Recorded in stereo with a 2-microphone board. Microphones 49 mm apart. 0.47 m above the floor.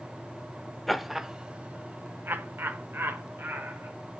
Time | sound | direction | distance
0.9 | laughter | centre (ahead or behind) | 1.0 m